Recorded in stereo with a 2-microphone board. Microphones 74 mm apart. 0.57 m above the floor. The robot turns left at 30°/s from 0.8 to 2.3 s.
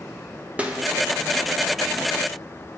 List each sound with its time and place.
0.6 s a snare drum: 15° right (ahead or behind), 0.6 m